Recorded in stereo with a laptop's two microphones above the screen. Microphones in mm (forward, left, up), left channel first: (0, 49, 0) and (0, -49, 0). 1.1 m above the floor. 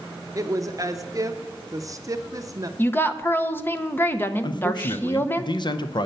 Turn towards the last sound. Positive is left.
turn(degrees=55)  # may be behind; listen again after turning